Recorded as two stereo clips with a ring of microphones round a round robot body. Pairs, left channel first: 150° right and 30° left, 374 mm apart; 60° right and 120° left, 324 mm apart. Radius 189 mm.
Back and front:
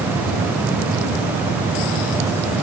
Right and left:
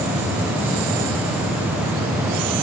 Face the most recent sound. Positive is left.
No sound to turn to.